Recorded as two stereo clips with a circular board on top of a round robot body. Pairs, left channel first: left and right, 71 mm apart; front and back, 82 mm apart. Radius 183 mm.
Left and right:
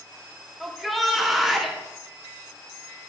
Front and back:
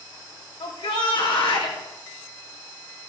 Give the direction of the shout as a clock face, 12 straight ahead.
12 o'clock.